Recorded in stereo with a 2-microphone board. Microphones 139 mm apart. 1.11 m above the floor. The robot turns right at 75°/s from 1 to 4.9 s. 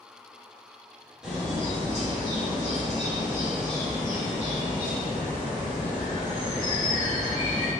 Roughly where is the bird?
Behind.